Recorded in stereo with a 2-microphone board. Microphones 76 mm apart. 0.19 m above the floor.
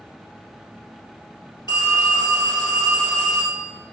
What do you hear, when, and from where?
1.7 s a phone ringing: 75° left (ahead or behind), 2 m